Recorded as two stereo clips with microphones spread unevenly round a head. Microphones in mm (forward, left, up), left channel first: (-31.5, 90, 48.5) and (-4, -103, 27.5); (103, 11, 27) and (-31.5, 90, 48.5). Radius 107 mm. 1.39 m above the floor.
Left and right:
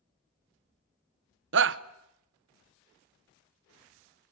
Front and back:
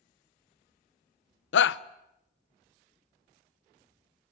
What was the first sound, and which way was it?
A shout, 45° right.